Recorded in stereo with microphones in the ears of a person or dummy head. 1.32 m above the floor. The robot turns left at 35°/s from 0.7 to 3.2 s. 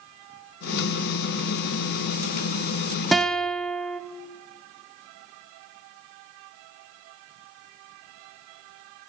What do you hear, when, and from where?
3.1 s a guitar: centre (ahead or behind), 0.7 m